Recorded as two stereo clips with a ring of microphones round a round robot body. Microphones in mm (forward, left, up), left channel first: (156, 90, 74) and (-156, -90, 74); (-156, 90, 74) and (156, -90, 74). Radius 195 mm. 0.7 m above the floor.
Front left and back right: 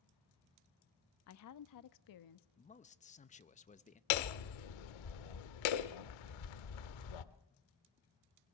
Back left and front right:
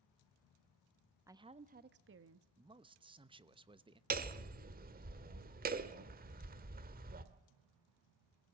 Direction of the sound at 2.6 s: 15° left.